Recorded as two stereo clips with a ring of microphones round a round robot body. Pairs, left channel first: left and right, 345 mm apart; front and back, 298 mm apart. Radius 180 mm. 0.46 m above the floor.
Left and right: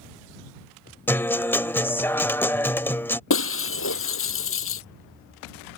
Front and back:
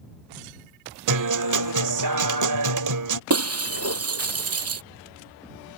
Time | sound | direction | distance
1.1 | a guitar | 175° left | ?
3.3 | breaking glass | 145° left | ?